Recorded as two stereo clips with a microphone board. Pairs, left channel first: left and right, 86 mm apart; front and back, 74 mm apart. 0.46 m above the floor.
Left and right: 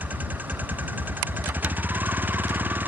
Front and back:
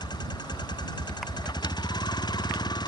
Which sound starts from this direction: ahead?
A vehicle, at 0.0 s.